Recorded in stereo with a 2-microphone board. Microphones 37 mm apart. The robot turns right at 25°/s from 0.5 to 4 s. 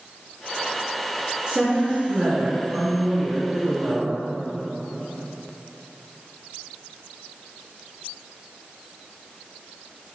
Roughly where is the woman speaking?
Right.